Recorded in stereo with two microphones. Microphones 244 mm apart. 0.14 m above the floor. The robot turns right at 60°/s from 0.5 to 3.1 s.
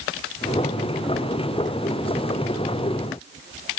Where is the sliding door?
I don't hear a sliding door.